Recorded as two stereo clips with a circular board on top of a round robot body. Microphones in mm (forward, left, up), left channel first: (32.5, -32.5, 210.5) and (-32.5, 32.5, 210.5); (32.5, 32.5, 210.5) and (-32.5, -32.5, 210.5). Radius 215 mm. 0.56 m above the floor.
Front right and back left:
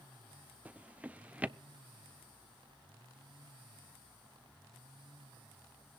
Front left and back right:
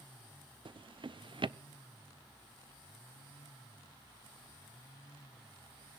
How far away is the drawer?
About 0.7 m.